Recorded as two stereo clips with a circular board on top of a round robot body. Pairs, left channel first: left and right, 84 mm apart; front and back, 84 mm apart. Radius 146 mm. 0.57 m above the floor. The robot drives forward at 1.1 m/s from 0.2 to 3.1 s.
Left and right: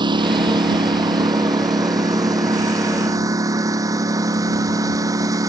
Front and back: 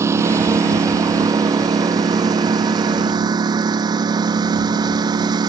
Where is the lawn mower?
120° right; by 5.5 s 140° right.